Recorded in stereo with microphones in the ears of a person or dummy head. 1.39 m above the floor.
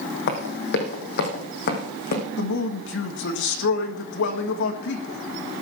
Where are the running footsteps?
60° left (ahead or behind), 3 m; by 2.2 s 55° left (ahead or behind), 4.5 m.